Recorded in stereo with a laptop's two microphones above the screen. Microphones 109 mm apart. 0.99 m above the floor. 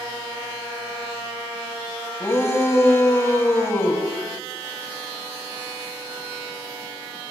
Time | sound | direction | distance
2.2 | a shout | 25° left (ahead or behind) | 6 m